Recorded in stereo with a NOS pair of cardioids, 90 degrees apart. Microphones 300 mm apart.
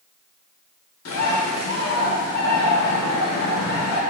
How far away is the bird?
About 1.2 m.